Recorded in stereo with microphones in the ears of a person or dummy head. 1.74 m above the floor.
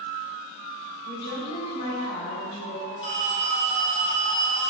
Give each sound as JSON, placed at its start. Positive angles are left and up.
{"t": 1.1, "sound": "a woman speaking", "side_deg": 55, "distance_m": 1.7}
{"t": 3.0, "sound": "a phone ringing", "side_deg": 25, "distance_m": 1.1}